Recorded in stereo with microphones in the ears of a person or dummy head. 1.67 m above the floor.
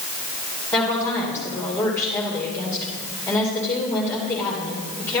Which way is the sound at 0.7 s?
15° left (ahead or behind).